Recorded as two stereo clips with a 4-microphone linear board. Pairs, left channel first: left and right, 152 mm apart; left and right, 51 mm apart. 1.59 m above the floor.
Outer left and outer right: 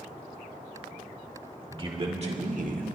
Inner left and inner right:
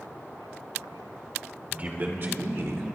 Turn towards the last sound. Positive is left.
turn(degrees=-65)  # may be behind; listen again after turning